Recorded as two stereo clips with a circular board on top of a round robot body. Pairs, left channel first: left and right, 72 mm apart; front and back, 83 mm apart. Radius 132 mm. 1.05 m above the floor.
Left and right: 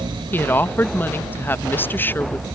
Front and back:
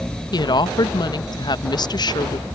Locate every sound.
0.3 s a woman speaking: 30° left